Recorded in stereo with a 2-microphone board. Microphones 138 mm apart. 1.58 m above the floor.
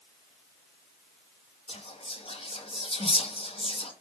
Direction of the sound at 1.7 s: 45° left (ahead or behind).